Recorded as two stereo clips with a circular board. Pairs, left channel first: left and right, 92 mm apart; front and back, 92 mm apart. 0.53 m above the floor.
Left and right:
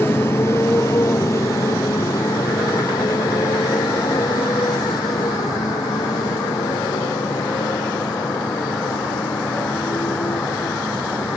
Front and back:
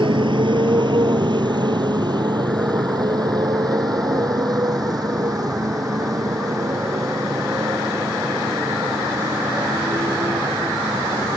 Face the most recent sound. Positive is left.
turn(degrees=130)